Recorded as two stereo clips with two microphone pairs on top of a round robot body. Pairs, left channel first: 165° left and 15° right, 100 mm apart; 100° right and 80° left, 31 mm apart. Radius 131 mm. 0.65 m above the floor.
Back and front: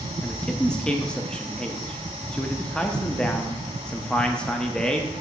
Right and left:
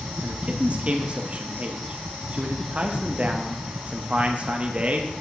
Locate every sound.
0.2 s a man speaking: 70° left, 0.7 m